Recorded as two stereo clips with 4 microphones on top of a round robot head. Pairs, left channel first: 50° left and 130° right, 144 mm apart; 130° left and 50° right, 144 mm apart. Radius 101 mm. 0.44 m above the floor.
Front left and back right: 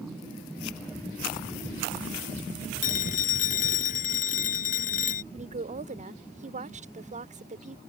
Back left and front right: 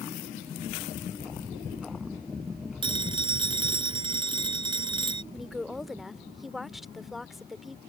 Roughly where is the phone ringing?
Ahead.